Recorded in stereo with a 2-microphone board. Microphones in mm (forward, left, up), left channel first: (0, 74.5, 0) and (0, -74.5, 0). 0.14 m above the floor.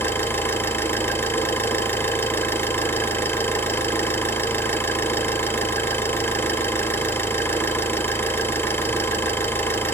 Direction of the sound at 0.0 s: 15° left (ahead or behind).